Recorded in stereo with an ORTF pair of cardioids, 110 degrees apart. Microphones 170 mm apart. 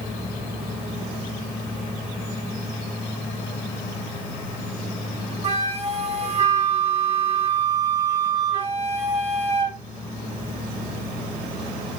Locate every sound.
5.4 s a flute: 40° right, 0.9 m